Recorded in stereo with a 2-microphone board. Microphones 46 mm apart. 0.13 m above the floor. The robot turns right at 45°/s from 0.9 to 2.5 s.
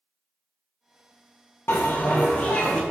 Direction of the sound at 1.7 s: 115° left.